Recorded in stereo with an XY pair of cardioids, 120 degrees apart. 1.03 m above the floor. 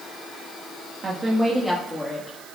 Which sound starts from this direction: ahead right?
A woman speaking, at 1.0 s.